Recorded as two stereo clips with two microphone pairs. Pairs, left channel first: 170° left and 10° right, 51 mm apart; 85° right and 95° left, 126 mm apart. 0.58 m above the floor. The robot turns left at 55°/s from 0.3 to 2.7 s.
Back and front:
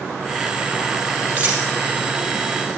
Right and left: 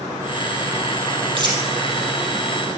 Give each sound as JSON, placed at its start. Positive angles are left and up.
{"t": 1.4, "sound": "a dropped coin", "azimuth_deg": 50, "distance_m": 3.5}